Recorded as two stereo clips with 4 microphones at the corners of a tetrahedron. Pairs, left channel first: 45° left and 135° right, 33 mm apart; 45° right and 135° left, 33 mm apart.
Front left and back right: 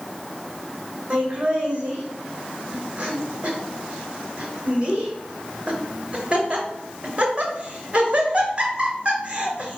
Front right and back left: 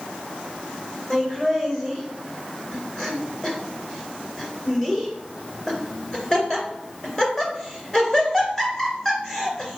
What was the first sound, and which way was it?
Laughter, 105° right.